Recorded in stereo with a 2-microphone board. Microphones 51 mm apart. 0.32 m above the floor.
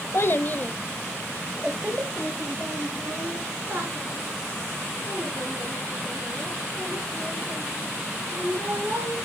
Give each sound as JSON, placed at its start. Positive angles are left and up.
{"t": 0.1, "sound": "a child speaking", "side_deg": 50, "distance_m": 0.8}